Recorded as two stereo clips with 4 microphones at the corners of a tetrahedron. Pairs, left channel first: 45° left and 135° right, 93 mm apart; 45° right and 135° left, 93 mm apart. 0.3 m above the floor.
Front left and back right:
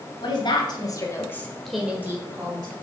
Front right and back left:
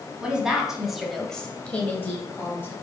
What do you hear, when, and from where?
0.2 s a woman speaking: 55° left, 2 m; by 2.7 s 105° right, 1.9 m